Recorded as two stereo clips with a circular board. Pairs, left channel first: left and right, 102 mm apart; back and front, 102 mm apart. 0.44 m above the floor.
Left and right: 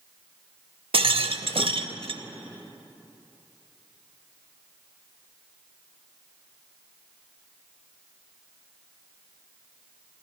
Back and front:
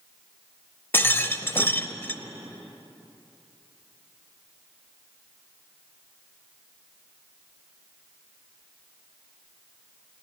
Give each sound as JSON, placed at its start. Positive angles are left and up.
{"t": 0.9, "sound": "a rattle", "azimuth_deg": -115, "distance_m": 0.6}